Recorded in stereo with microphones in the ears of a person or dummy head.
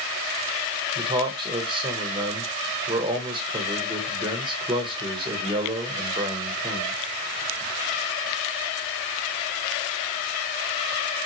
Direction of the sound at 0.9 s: 20° right (ahead or behind).